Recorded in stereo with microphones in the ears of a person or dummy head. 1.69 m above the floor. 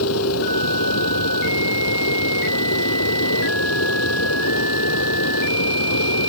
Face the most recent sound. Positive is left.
turn(degrees=85)